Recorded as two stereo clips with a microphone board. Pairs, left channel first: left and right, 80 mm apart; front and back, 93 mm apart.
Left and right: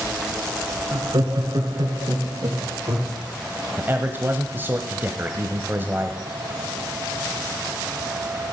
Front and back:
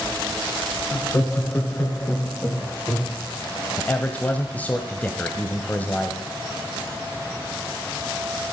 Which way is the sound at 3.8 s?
55° right.